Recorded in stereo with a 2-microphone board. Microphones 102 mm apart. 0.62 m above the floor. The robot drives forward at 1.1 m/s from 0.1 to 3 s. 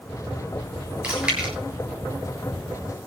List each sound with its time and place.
1.0 s chewing: 10° right (ahead or behind), 9 m